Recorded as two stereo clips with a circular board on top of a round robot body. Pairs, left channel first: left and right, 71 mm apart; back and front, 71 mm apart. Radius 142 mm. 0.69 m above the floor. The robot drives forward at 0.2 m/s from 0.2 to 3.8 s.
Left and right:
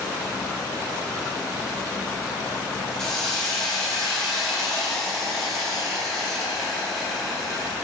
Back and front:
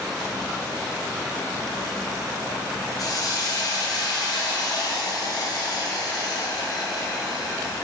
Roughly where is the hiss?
Behind.